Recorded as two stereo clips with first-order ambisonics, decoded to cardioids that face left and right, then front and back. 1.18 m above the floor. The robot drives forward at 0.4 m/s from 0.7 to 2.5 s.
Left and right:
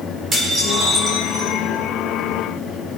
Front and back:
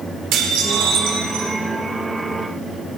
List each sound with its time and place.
0.3 s dishes clattering: 155° right, 2.5 m; by 1.6 s 160° right, 3 m